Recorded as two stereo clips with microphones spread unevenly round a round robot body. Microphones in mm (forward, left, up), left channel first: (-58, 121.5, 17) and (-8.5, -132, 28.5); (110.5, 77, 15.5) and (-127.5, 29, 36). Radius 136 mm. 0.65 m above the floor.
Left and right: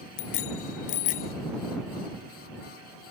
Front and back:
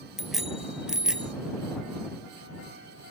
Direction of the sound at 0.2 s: 105° left.